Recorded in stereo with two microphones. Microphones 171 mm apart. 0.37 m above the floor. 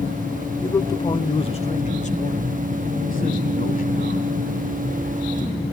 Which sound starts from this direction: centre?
A man speaking, at 0.6 s.